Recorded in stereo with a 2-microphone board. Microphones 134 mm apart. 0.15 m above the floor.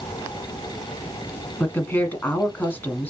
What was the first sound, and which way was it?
A woman speaking, 15° left (ahead or behind).